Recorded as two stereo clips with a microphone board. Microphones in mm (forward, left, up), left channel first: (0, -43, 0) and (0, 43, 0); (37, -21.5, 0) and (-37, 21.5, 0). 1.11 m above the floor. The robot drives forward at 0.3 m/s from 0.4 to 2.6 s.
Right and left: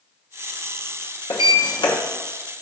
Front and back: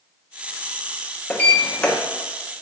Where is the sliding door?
100° right, 0.7 m; by 2.0 s 115° right, 0.8 m.